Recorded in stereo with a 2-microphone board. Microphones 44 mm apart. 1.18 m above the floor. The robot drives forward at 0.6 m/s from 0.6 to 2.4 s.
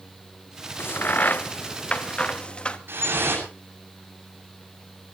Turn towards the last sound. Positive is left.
turn(degrees=-55)  # may be behind; listen again after turning